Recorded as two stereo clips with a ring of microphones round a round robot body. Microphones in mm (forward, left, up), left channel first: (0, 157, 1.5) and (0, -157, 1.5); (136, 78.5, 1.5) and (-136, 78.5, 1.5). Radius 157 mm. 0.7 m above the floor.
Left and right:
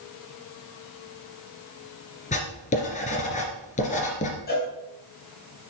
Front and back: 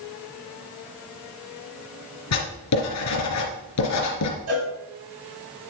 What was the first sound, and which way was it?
Writing, 20° left.